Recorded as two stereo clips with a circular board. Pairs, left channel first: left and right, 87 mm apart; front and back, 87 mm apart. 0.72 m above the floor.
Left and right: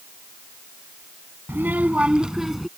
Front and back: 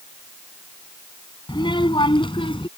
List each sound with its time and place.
1.5 s a child speaking: 25° right; by 2.7 s straight ahead